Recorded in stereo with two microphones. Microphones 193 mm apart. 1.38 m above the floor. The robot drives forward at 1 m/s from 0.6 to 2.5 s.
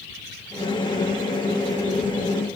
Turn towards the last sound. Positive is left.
No sound to turn to.